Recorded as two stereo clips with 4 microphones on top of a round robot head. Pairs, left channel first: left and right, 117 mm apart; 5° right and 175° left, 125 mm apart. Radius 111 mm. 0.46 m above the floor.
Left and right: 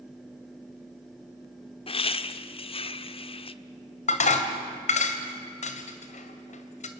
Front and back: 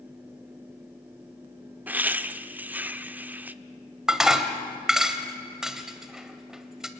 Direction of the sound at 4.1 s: 85° left.